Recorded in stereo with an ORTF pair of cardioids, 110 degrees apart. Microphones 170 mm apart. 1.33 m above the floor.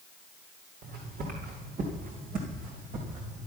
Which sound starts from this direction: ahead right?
Footsteps, at 0.8 s.